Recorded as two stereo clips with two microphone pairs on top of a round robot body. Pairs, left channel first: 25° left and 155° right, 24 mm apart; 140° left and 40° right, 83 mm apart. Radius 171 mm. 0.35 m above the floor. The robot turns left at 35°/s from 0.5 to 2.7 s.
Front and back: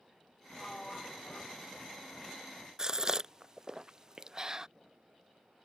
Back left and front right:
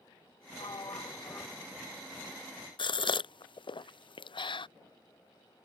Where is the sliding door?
110° left; by 2.0 s 55° left.